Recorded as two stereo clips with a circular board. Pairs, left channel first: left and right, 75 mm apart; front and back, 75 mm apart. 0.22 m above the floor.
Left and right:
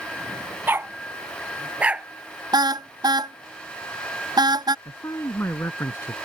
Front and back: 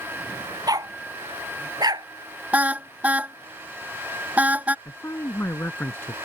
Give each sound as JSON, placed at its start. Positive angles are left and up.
{"t": 0.7, "sound": "a dog barking", "azimuth_deg": -150}
{"t": 2.5, "sound": "a car horn", "azimuth_deg": -110}
{"t": 4.8, "sound": "a man speaking", "azimuth_deg": 50}